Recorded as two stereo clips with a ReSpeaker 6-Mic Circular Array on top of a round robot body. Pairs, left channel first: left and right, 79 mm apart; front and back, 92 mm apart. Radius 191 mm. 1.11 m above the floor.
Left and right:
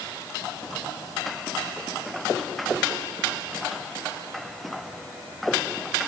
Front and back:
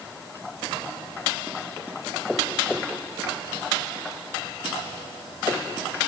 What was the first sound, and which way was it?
Only background noise.